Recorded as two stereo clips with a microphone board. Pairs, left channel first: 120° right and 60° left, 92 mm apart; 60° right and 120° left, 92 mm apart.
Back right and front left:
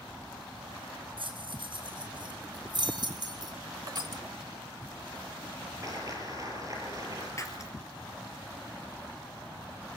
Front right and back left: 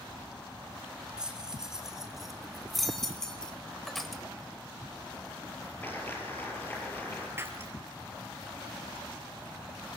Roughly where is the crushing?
Ahead left.